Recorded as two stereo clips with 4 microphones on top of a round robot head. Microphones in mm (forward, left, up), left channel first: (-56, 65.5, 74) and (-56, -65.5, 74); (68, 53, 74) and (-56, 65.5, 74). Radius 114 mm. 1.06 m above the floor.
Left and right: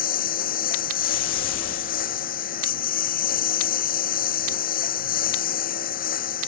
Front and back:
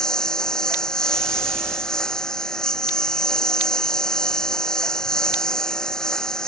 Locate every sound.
0.0 s a lawn mower: 80° left